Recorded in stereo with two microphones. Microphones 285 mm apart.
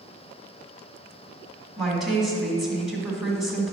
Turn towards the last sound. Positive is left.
turn(degrees=0)  # may be behind; listen again after turning